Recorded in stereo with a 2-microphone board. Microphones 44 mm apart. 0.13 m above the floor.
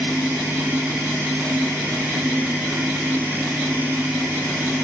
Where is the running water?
60° right (ahead or behind), 9 m.